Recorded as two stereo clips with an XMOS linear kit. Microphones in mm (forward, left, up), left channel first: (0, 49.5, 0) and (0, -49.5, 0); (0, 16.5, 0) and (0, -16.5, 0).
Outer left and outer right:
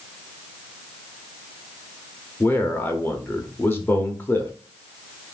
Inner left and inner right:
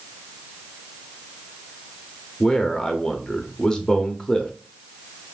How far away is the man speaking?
About 0.8 m.